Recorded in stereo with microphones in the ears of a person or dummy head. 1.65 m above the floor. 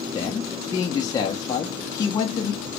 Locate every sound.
0.1 s a man speaking: 20° left (ahead or behind), 0.7 m